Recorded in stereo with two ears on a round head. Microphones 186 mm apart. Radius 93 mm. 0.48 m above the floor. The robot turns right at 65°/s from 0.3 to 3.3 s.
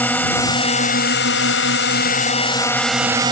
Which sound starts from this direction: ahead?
A drone, at 0.0 s.